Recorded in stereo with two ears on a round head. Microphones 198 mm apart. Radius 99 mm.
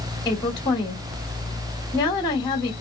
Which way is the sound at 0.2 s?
20° left (ahead or behind).